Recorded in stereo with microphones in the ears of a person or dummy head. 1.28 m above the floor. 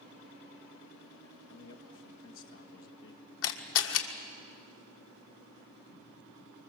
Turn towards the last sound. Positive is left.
turn(degrees=75)  # may be behind; listen again after turning